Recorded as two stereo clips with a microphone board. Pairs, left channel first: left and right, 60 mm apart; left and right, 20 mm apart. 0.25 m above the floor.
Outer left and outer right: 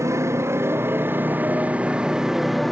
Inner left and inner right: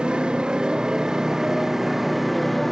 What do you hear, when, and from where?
0.0 s a motorcycle: 50° right (ahead or behind); by 2.7 s 5° left (ahead or behind)